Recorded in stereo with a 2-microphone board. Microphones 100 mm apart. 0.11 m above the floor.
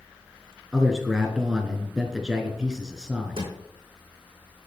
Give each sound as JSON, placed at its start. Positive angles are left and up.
{"t": 0.7, "sound": "a man speaking", "side_deg": -5, "distance_m": 1.3}
{"t": 3.4, "sound": "a drawer", "side_deg": -75, "distance_m": 4.0}